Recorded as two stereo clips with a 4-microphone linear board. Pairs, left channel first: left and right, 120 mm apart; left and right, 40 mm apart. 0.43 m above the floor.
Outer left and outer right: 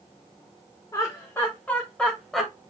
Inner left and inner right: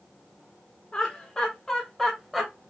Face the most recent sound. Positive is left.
turn(degrees=0)  # may be behind; listen again after turning